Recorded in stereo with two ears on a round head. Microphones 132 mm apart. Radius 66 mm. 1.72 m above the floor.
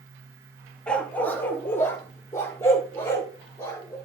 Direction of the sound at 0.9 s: 10° left (ahead or behind).